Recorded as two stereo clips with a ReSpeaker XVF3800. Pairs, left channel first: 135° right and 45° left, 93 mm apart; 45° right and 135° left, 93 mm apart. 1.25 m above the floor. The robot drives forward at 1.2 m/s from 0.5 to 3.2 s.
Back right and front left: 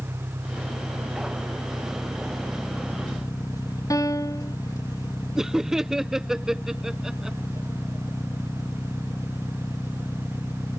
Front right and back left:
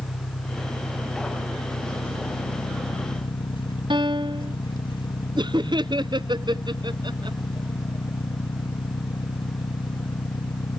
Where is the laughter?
130° left.